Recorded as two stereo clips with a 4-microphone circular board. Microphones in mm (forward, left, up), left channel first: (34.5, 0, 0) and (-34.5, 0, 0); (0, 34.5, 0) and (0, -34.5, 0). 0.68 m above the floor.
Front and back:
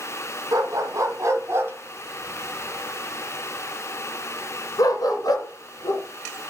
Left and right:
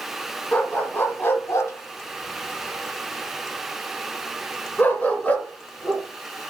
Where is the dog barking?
150° left, 1.9 m; by 6.0 s 15° left, 3 m.